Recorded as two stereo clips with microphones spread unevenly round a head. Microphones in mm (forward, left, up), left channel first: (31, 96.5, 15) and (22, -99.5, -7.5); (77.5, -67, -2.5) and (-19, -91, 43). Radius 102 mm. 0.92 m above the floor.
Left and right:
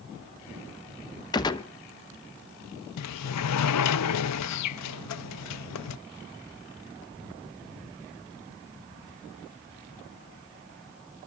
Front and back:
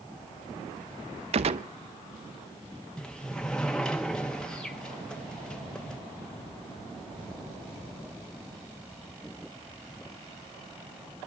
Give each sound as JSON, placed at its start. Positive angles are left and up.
{"t": 1.3, "sound": "a gunshot", "azimuth_deg": 160, "distance_m": 0.7}
{"t": 3.0, "sound": "a sliding door", "azimuth_deg": 100, "distance_m": 0.5}